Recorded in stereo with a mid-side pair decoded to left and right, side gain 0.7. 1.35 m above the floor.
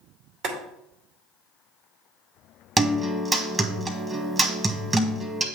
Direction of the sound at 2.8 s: 20° right.